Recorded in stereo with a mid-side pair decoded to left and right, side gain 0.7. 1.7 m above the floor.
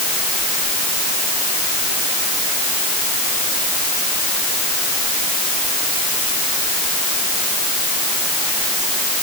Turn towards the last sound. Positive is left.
No sound to turn to.